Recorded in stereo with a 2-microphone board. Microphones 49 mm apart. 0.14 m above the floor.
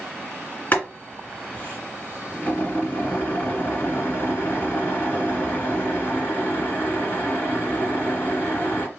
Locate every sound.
0.7 s boiling: 40° left (ahead or behind), 2 m